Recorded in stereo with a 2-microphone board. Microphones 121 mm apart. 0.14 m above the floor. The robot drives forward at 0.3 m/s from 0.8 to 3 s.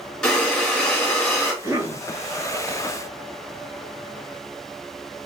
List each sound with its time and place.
0.2 s breathing: 5° left (ahead or behind), 2.0 m
1.6 s a cough: 30° right (ahead or behind), 2.0 m